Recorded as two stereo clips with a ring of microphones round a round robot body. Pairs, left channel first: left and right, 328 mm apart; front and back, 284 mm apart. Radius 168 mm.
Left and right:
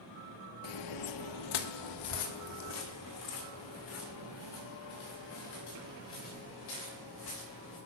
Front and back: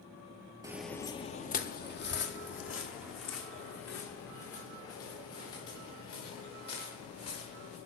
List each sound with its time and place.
0.6 s footsteps: 105° left, 0.5 m; by 7.8 s 35° left, 5 m